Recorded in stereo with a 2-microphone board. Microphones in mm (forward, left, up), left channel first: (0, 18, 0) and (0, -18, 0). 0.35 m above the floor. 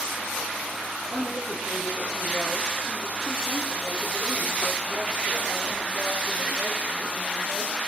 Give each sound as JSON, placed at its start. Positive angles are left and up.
{"t": 1.1, "sound": "a woman speaking", "side_deg": 15, "distance_m": 5.0}